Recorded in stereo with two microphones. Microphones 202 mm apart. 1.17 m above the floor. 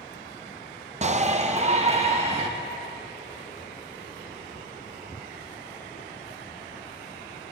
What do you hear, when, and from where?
1.0 s a shout: 35° right (ahead or behind), 0.6 m; by 2.5 s 30° right (ahead or behind), 1.8 m